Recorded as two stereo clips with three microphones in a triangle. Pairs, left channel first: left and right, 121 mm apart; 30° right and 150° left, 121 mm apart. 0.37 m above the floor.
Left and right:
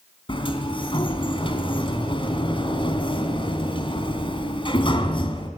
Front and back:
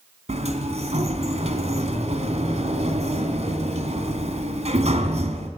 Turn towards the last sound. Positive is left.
turn(degrees=130)